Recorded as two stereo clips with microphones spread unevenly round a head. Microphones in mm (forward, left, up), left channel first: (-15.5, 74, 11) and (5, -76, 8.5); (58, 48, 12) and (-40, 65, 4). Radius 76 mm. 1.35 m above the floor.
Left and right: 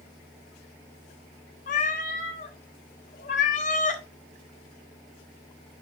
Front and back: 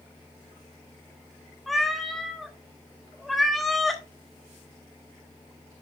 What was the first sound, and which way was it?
A cat meowing, 75° left.